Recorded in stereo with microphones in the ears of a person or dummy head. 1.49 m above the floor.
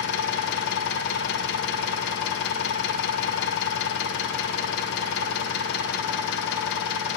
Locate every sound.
0.0 s an engine running: 65° left (ahead or behind), 0.8 m